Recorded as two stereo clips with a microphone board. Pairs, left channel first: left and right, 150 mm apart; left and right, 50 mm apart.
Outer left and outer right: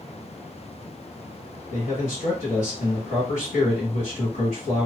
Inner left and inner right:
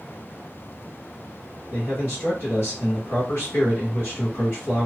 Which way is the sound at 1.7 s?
50° left (ahead or behind).